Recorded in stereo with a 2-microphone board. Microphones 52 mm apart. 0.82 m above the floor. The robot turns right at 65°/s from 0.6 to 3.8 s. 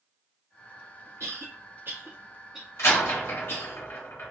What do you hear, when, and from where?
1.2 s a cough: 60° right (ahead or behind), 1.7 m; by 3.8 s 55° left (ahead or behind), 1.7 m
2.8 s a door slam: 55° left (ahead or behind), 1.6 m; by 4.3 s 50° left (ahead or behind), 1.6 m